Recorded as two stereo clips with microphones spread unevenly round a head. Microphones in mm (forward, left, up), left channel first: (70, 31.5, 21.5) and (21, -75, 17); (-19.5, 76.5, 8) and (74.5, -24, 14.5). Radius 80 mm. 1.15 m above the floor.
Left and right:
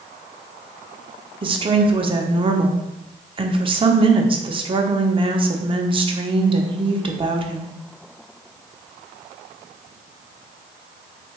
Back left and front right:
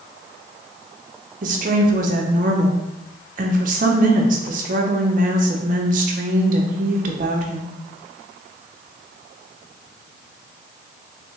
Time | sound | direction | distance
1.4 | a woman speaking | 75° right | 0.7 m